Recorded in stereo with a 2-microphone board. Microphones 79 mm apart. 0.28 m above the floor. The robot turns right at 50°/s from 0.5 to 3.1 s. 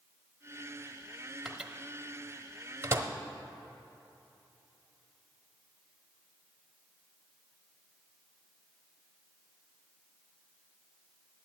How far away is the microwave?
About 0.9 m.